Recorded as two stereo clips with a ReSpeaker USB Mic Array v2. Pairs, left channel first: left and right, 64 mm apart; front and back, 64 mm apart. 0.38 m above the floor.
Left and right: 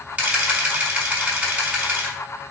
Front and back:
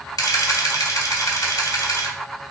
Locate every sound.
0.2 s a camera shutter: 25° right, 0.9 m